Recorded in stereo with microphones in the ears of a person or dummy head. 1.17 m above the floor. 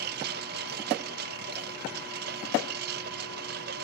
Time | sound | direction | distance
0.0 | a lawn mower | 60° right (ahead or behind) | ?